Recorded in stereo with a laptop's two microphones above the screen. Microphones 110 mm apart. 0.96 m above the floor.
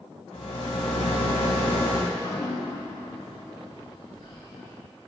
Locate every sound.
0.3 s a rattle: 75° left (ahead or behind), 2 m
2.1 s dripping: 70° left (ahead or behind), 2 m